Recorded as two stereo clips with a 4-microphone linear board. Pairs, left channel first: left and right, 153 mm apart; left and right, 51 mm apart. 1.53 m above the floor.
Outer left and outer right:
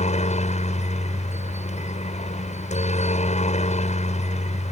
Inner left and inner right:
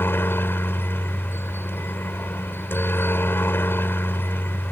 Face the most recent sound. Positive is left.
turn(degrees=45)  # may be behind; listen again after turning